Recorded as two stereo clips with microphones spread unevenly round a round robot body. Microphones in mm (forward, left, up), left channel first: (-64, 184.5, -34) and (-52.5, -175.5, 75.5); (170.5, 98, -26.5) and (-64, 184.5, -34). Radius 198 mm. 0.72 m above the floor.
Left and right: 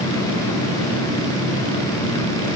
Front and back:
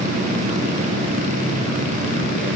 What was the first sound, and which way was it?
Only background noise.